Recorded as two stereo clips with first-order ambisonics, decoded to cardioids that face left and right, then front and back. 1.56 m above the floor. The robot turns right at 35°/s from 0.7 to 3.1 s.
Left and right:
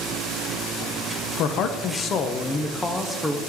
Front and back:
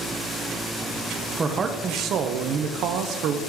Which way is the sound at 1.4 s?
110° left.